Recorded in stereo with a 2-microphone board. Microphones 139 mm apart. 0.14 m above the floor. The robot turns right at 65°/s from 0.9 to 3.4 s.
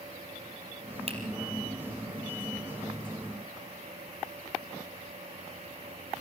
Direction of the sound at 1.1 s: 45° right (ahead or behind).